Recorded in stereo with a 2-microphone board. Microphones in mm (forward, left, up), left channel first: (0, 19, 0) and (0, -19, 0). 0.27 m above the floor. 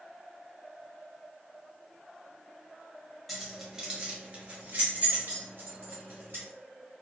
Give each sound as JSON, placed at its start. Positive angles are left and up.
{"t": 3.3, "sound": "keys jangling", "side_deg": 0, "distance_m": 0.8}